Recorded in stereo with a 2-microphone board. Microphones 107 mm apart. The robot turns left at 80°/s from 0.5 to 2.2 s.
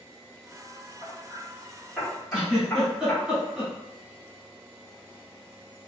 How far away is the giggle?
About 1.5 m.